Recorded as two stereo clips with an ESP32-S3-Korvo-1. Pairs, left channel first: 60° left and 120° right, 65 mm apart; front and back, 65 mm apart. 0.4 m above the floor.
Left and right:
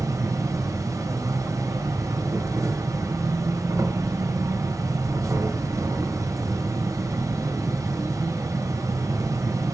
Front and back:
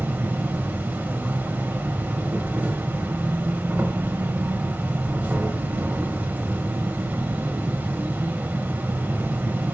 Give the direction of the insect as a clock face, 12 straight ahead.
4 o'clock.